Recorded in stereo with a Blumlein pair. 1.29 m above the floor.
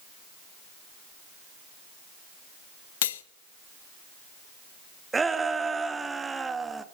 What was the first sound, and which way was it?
Cutlery clinking, 60° left.